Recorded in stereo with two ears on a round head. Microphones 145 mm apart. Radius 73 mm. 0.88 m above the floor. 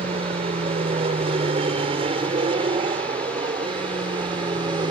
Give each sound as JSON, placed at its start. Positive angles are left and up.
{"t": 0.0, "sound": "an aircraft", "side_deg": -40}